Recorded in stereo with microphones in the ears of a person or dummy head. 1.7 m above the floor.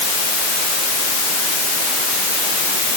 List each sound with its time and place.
Only background noise.